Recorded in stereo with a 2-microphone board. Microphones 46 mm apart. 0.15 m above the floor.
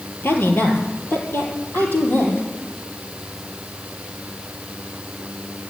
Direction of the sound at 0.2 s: 50° left (ahead or behind).